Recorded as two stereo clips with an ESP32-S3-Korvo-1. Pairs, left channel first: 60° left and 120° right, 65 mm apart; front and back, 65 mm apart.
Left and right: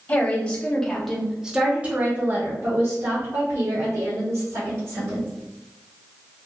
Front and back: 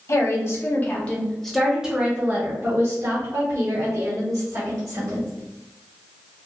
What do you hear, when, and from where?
0.1 s a woman speaking: 5° left, 1.0 m; by 5.3 s 160° right, 2 m